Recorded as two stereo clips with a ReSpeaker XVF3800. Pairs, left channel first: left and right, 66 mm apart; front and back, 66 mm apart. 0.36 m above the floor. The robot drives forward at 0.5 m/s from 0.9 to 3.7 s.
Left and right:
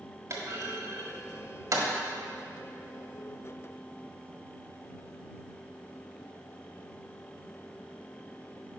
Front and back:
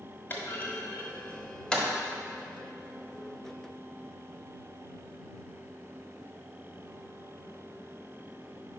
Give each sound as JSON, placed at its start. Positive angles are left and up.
{"t": 0.3, "sound": "a clunk", "azimuth_deg": -55, "distance_m": 1.2}